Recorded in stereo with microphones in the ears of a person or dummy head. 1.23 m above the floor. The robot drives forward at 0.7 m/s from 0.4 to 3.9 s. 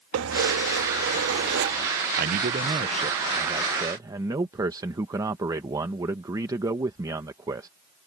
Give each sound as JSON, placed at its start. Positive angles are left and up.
{"t": 0.1, "sound": "keys jangling", "side_deg": -90}
{"t": 2.2, "sound": "a man speaking", "side_deg": -45}